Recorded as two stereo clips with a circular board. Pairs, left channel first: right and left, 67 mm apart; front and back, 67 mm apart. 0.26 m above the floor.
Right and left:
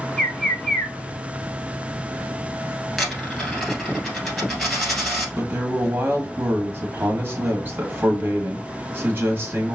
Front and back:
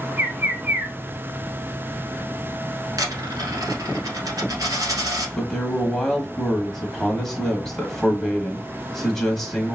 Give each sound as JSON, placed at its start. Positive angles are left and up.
{"t": 0.2, "sound": "a bird", "azimuth_deg": -165, "distance_m": 0.7}
{"t": 3.0, "sound": "a dropped coin", "azimuth_deg": 180, "distance_m": 1.5}
{"t": 5.4, "sound": "a man speaking", "azimuth_deg": 85, "distance_m": 1.2}